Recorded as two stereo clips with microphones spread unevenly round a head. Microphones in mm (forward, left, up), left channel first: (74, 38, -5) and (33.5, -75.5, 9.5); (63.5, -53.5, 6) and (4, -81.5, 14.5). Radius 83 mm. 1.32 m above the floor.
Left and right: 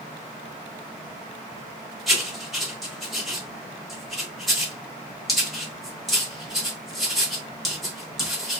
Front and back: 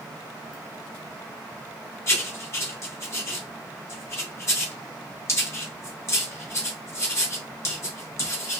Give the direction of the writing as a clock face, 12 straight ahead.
1 o'clock.